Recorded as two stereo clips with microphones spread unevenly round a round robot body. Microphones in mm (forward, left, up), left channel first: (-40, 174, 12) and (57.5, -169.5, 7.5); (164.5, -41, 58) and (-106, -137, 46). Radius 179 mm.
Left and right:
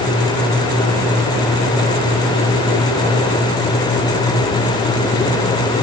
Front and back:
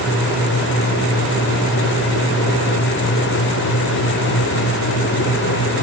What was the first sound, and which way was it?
Only background noise.